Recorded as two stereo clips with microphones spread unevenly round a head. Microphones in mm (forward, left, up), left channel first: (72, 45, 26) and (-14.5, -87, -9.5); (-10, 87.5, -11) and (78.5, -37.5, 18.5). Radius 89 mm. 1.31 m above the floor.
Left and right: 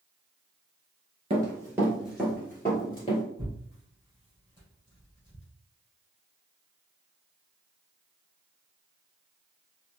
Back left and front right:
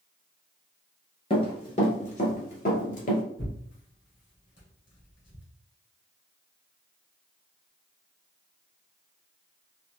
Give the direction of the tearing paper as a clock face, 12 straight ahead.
8 o'clock.